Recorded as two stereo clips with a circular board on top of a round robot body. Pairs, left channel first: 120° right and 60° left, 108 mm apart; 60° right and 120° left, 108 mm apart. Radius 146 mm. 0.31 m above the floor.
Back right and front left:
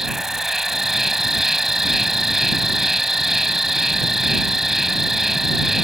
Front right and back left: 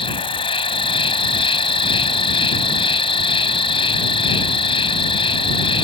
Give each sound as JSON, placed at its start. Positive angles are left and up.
{"t": 0.0, "sound": "an insect", "azimuth_deg": -25}